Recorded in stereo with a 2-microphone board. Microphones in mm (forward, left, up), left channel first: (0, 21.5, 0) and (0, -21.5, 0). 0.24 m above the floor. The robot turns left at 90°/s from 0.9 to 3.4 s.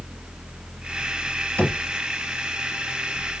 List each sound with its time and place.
1.6 s knocking: 40° left (ahead or behind), 1.9 m; by 1.8 s 55° left (ahead or behind), 1.9 m